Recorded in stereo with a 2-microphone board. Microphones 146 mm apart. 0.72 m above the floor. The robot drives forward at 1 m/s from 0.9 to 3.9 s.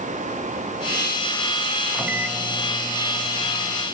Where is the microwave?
5° right (ahead or behind), 0.5 m; by 3.9 s centre (ahead or behind), 1.8 m.